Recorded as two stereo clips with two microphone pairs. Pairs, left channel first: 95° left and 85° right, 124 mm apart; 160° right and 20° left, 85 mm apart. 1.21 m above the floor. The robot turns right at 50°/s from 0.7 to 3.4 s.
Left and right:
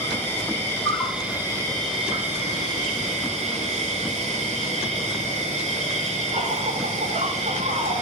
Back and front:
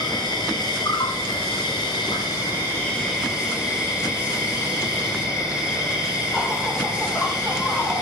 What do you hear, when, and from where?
0.0 s an insect: 170° left, 4.5 m; by 8.0 s 55° right, 4.5 m